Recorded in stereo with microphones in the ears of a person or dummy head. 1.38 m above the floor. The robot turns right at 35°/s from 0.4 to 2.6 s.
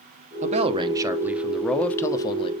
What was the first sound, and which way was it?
A man speaking, 40° right.